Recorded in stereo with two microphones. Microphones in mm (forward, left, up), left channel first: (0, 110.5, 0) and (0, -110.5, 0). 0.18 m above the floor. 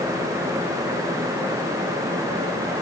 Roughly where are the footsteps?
I don't hear footsteps.